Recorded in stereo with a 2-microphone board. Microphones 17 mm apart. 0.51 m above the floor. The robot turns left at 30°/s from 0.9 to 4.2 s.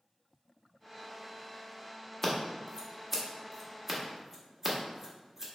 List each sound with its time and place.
2.2 s scissors: 25° left (ahead or behind), 1.0 m; by 5.5 s 20° right (ahead or behind), 1.0 m